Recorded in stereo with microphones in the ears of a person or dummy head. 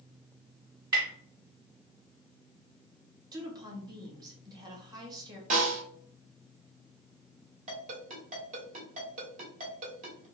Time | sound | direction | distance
0.9 | tapping | 25° right (ahead or behind) | 2.5 m
3.3 | a woman speaking | 25° right (ahead or behind) | 1.7 m
5.5 | a snare drum | 45° right (ahead or behind) | 2.5 m
7.7 | a ringtone | 45° right (ahead or behind) | 2 m